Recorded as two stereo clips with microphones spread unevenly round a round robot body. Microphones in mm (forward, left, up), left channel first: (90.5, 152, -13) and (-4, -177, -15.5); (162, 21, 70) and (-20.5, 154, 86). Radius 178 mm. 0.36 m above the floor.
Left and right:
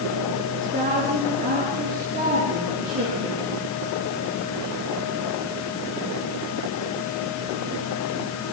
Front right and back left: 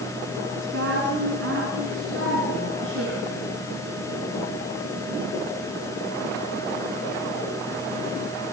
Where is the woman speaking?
175° right, 5 m; by 3.5 s 170° right, 7.5 m.